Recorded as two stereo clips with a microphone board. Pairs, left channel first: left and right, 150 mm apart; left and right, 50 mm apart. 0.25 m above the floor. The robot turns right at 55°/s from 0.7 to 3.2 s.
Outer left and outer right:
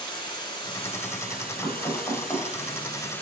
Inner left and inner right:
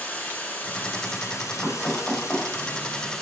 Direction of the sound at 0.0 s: 30° left.